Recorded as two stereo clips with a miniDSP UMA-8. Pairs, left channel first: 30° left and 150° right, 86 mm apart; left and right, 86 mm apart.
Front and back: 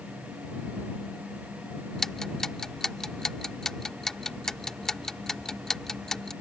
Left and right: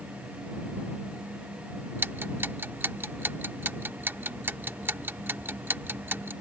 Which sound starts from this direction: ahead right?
Ticking, at 2.0 s.